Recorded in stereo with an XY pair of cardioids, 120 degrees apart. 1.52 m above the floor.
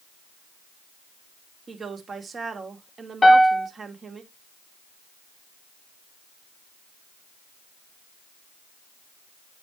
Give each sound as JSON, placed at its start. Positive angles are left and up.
{"t": 1.7, "sound": "a woman speaking", "azimuth_deg": -35, "distance_m": 2.5}
{"t": 3.2, "sound": "a piano", "azimuth_deg": 20, "distance_m": 0.9}